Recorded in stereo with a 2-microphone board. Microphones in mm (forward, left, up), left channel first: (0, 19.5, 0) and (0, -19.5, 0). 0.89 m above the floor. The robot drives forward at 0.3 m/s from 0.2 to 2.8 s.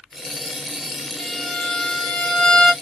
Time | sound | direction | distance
1.2 | a violin | 20° left (ahead or behind) | 1.5 m